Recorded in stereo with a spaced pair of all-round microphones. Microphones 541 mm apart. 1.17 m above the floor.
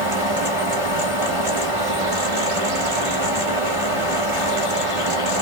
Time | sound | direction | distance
0.0 | a fan | 70° right (ahead or behind) | 1.1 m